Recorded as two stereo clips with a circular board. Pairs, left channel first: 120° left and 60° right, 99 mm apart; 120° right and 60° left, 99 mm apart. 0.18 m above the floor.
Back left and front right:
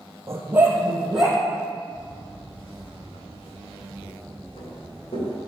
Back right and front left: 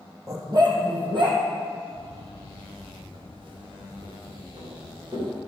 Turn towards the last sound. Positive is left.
turn(degrees=105)